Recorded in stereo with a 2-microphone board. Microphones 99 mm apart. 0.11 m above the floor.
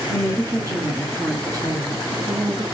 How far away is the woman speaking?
About 1.3 m.